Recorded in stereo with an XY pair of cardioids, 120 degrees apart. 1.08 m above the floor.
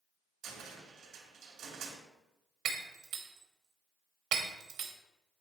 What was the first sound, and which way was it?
A cupboard door, 65° right.